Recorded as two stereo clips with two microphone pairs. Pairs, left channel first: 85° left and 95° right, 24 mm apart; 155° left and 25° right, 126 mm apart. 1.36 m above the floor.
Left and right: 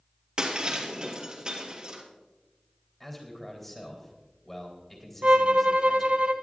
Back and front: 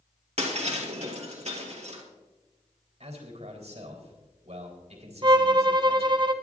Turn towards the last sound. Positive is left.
turn(degrees=-70)